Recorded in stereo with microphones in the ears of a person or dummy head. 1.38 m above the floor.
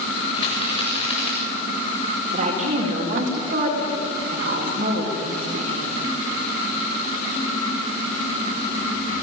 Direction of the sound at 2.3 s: 45° right (ahead or behind).